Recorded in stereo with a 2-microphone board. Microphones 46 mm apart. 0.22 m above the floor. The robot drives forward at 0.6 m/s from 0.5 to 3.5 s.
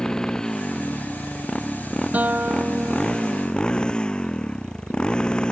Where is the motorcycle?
15° left (ahead or behind); by 5.5 s 20° left (ahead or behind).